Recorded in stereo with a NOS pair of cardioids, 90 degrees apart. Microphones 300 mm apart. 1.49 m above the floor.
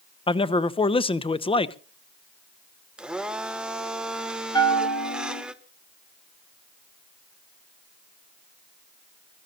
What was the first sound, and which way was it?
A man speaking, 20° left.